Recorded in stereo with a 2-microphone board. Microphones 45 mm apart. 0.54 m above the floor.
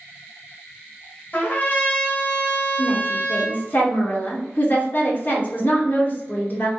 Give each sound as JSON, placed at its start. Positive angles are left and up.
{"t": 1.3, "sound": "a trumpet", "side_deg": 40, "distance_m": 1.0}
{"t": 2.8, "sound": "a woman speaking", "side_deg": 45, "distance_m": 1.2}